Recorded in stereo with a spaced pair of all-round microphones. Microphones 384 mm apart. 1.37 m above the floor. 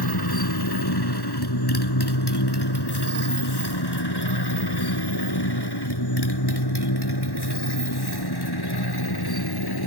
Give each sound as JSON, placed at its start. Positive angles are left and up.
{"t": 0.0, "sound": "a motorcycle", "side_deg": 70}